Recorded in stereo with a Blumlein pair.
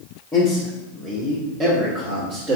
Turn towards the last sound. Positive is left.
turn(degrees=-35)